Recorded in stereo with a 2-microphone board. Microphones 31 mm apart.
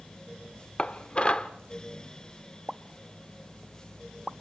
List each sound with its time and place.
0.8 s dishes clattering: 35° left (ahead or behind), 0.9 m
2.7 s a pop: 5° right (ahead or behind), 0.7 m